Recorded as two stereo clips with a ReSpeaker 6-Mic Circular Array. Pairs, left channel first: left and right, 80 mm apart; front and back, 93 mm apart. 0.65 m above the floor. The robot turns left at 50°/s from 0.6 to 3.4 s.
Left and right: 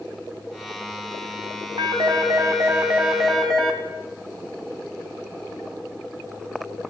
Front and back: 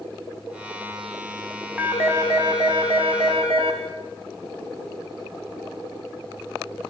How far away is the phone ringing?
About 3 m.